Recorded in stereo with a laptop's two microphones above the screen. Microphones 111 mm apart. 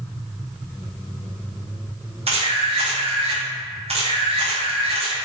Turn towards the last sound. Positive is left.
turn(degrees=-65)  # may be behind; listen again after turning